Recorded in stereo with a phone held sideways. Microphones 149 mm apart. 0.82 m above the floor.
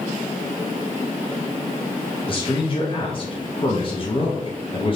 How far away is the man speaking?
About 0.6 m.